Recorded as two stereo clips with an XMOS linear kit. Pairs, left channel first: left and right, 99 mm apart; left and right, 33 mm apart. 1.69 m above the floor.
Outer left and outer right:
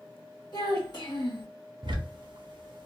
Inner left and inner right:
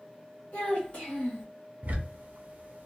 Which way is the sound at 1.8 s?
55° right (ahead or behind).